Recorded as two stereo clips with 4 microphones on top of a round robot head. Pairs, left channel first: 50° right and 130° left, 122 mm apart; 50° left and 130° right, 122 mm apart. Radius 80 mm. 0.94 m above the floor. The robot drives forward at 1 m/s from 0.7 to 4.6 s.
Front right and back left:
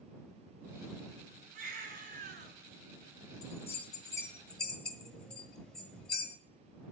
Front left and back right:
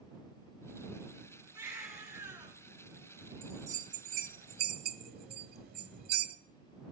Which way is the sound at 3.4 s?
80° right.